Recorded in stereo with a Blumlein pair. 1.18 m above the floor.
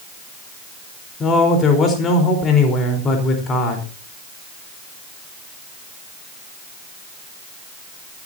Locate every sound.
1.2 s a man speaking: 25° left, 4 m